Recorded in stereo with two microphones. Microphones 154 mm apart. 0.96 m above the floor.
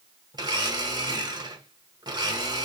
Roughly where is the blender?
Right.